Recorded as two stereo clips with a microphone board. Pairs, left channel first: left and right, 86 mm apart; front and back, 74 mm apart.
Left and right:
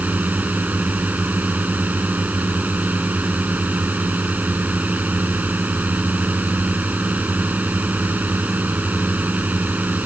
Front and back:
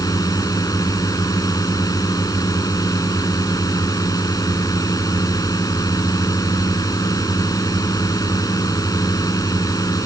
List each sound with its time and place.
0.0 s a drone: 20° right